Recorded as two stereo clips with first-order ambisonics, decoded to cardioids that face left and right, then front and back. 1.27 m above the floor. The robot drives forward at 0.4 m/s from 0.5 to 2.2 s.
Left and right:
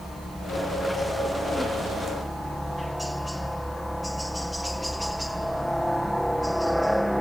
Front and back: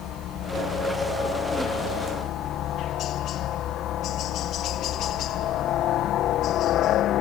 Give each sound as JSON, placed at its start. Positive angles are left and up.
{"t": 0.0, "sound": "a helicopter", "azimuth_deg": -5}